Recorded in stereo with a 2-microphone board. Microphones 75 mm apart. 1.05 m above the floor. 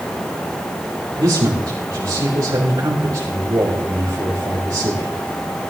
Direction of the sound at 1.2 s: 50° right (ahead or behind).